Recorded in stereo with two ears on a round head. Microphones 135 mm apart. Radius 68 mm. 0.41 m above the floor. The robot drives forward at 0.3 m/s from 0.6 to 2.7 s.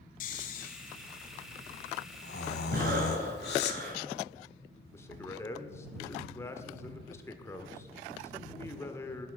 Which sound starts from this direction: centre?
A man speaking, at 4.9 s.